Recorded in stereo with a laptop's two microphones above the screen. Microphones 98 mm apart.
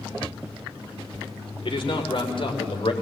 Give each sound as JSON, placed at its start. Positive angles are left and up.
{"t": 1.6, "sound": "a man speaking", "side_deg": 60, "distance_m": 3.0}